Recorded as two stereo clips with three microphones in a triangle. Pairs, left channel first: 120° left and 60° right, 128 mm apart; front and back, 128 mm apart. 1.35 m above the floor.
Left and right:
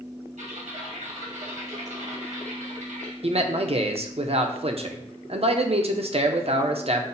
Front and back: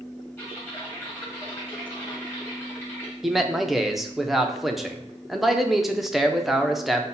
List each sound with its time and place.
0.4 s typing on a keyboard: 70° right, 1.6 m
3.2 s a man speaking: 90° right, 0.6 m